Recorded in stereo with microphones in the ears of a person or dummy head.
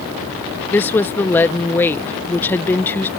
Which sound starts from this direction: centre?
A woman speaking, at 0.7 s.